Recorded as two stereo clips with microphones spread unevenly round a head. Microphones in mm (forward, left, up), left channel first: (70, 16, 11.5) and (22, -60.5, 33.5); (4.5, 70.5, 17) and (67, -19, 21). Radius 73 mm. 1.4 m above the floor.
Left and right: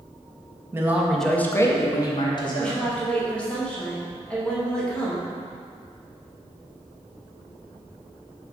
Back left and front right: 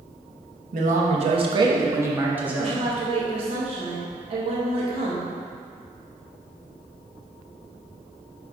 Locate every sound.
0.7 s a man speaking: 65° right, 1.5 m; by 2.9 s 30° left, 3 m
2.6 s a woman speaking: 20° right, 2.5 m